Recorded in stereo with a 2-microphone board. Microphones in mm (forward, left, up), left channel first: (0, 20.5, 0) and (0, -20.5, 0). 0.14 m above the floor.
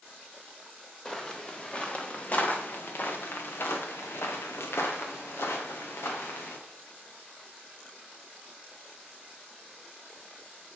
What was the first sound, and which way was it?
Footsteps, 15° left (ahead or behind).